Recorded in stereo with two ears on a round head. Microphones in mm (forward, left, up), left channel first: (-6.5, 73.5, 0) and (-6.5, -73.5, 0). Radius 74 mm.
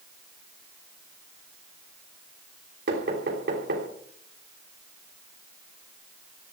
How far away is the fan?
I don't hear a fan.